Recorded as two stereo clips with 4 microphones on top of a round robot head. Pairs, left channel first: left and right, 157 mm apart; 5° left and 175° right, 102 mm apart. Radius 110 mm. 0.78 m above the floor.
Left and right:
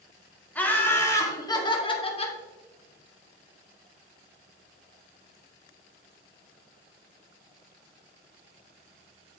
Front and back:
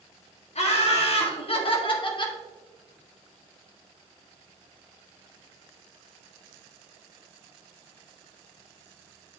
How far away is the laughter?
About 2.5 m.